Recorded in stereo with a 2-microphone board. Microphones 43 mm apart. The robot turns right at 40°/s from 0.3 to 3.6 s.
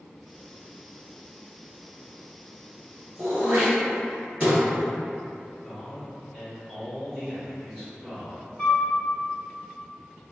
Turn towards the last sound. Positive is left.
turn(degrees=25)  # may be behind; listen again after turning